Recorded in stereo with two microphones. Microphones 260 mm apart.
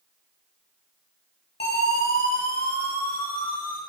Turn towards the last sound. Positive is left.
turn(degrees=30)  # may be behind; listen again after turning